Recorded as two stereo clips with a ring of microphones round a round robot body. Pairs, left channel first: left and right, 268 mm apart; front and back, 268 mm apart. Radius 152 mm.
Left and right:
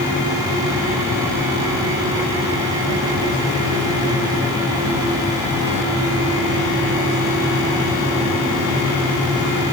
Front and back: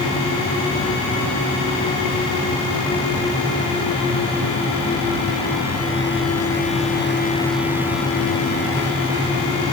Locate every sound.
Only background noise.